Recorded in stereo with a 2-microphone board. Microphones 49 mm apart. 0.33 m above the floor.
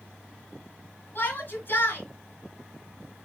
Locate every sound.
1.1 s a shout: 40° left (ahead or behind), 3.5 m